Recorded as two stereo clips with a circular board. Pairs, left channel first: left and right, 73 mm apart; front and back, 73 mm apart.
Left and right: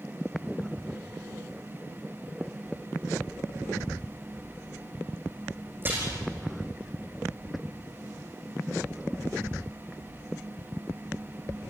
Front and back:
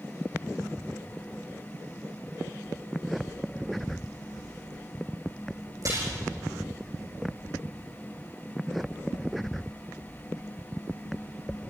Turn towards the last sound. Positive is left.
turn(degrees=-145)